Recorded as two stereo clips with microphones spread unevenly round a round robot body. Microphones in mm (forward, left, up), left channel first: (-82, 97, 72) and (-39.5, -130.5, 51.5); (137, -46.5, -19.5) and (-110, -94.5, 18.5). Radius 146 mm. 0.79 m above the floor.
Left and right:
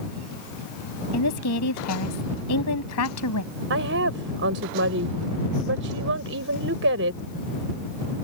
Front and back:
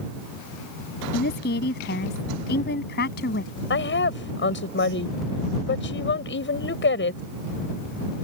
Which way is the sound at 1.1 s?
70° left.